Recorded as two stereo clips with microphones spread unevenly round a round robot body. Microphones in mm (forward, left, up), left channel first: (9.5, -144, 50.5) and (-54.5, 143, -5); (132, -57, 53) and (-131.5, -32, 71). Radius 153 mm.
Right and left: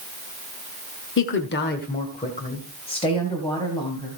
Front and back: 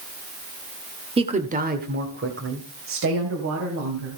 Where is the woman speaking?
120° right, 1.4 m; by 4.2 s 160° right, 3 m.